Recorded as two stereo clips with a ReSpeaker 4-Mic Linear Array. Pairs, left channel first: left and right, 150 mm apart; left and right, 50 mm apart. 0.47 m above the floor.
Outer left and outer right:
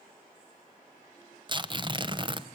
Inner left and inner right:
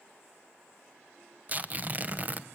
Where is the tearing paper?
30° right (ahead or behind), 0.9 m.